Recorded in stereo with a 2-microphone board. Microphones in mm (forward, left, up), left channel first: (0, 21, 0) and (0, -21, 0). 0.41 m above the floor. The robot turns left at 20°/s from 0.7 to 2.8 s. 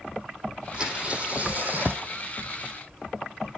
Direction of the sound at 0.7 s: 20° right (ahead or behind).